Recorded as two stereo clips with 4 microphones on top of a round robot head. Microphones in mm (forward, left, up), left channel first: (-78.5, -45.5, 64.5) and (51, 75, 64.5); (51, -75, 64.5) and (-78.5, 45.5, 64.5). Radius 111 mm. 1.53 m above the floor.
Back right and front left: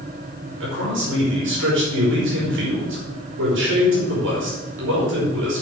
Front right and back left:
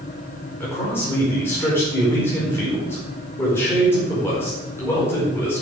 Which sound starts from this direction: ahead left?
A man speaking, at 0.6 s.